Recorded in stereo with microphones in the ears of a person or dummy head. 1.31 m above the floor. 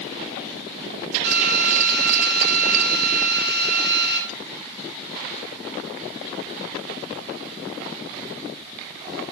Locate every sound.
1.2 s a drill: 55° right (ahead or behind), 9 m